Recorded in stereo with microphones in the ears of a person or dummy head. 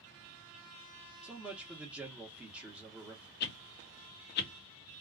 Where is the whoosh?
45° left (ahead or behind), 0.5 m.